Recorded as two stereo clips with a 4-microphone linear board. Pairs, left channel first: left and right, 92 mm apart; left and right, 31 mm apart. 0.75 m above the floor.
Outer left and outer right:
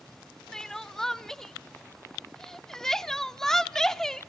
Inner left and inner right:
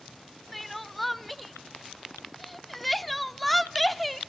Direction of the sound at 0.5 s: 5° left (ahead or behind).